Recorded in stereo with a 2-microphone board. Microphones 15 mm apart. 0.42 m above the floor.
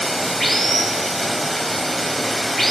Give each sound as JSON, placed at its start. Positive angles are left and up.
{"t": 0.0, "sound": "running water", "side_deg": 15, "distance_m": 1.3}